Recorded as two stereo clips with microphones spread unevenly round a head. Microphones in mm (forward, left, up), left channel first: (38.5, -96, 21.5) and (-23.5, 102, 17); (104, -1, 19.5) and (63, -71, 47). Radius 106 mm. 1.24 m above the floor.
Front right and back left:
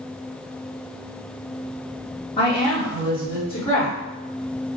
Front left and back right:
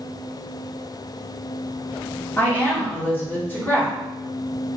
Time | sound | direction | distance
2.4 | a woman speaking | 10° right | 1.5 m